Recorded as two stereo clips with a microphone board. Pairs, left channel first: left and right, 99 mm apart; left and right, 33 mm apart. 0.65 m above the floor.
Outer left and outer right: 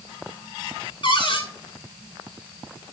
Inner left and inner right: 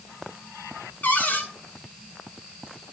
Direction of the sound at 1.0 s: 55° left (ahead or behind).